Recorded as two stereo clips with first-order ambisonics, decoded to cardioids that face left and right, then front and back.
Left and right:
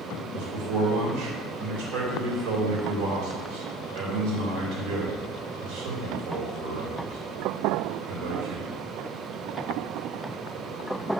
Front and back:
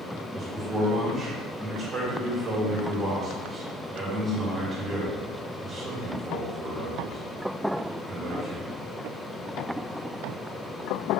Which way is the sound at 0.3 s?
105° right.